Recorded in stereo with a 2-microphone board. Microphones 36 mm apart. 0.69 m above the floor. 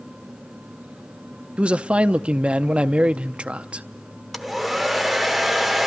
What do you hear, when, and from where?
1.6 s a man speaking: 35° right (ahead or behind), 0.7 m
4.3 s a hair dryer: centre (ahead or behind), 0.9 m